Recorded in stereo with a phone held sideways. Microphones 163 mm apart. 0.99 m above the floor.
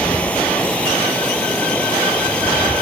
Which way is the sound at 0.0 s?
10° left (ahead or behind).